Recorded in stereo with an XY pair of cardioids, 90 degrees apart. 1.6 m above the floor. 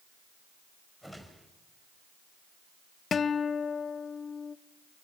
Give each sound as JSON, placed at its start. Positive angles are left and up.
{"t": 1.0, "sound": "a whoosh", "azimuth_deg": -5, "distance_m": 5.0}
{"t": 3.1, "sound": "a guitar", "azimuth_deg": 55, "distance_m": 0.8}